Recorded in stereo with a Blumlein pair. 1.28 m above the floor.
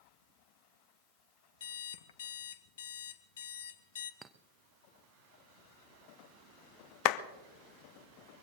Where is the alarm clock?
60° left, 0.9 m.